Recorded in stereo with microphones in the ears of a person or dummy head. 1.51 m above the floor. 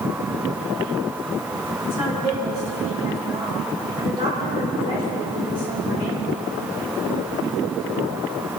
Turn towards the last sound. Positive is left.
turn(degrees=-20)  # may be behind; listen again after turning